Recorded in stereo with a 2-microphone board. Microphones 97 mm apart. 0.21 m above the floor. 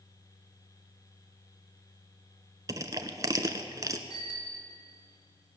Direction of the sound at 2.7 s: 40° right (ahead or behind).